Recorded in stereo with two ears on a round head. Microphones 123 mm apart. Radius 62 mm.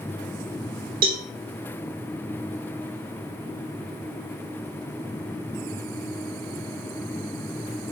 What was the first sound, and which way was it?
A cowbell, 65° right (ahead or behind).